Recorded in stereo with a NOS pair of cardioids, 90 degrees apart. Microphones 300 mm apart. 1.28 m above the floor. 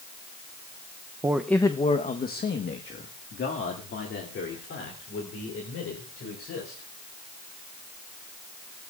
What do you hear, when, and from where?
1.2 s a man speaking: 15° right, 0.7 m; by 6.9 s 50° left, 5.5 m